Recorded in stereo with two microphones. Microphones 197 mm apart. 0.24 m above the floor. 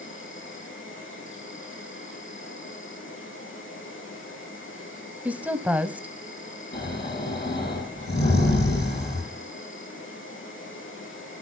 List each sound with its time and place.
0.0 s an insect: 85° left, 3.5 m
5.2 s a woman speaking: 10° right (ahead or behind), 1.1 m
6.7 s snoring: 55° left (ahead or behind), 7 m